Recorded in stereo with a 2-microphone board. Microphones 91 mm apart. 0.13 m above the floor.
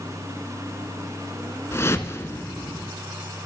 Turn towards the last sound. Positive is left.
turn(degrees=30)  # may be behind; listen again after turning